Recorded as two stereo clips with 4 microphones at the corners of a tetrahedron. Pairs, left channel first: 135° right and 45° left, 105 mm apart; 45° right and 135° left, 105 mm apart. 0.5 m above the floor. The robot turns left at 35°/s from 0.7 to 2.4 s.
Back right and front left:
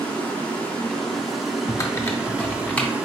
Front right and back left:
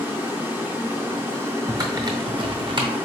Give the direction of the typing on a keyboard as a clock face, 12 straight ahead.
6 o'clock.